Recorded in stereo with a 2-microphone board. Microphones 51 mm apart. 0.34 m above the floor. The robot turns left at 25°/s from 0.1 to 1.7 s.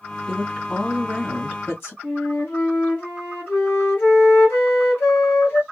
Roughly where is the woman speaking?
Behind.